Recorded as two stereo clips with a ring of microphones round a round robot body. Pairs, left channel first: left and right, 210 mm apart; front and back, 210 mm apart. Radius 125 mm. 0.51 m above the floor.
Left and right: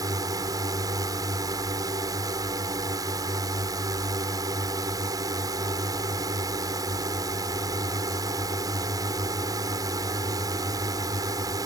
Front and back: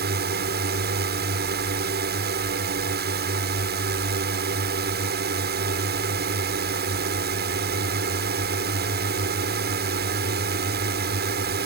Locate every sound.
0.0 s a drone: 160° right